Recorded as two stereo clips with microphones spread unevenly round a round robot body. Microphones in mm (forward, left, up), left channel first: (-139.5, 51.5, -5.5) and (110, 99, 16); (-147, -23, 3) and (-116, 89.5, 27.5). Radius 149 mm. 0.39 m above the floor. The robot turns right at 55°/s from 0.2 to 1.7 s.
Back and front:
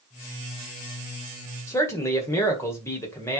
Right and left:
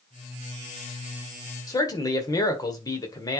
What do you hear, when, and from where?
1.7 s a man speaking: 100° right, 1.6 m